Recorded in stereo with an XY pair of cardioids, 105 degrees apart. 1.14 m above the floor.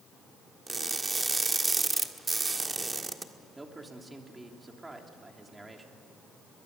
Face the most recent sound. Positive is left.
turn(degrees=-15)